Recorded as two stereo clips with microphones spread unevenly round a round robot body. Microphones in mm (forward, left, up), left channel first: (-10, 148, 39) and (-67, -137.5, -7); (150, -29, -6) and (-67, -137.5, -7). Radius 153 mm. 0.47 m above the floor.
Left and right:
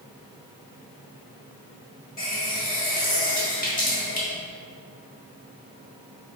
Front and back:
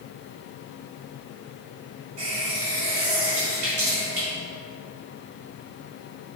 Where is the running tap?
140° left, 2 m.